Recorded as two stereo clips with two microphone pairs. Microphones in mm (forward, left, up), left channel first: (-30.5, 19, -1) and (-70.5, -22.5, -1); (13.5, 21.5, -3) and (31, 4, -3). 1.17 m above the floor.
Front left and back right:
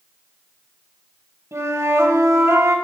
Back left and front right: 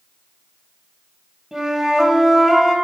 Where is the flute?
115° right, 1.8 m.